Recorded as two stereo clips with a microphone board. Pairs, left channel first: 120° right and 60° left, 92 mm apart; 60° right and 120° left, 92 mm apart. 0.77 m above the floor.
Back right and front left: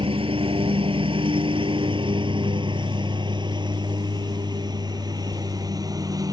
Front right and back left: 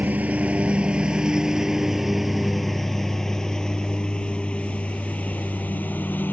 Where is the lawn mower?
50° left; by 6.3 s 10° left.